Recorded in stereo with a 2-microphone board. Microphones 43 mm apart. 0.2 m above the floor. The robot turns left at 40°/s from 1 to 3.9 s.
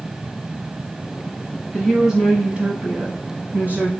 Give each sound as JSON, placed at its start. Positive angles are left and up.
{"t": 1.7, "sound": "a woman speaking", "azimuth_deg": -15, "distance_m": 1.2}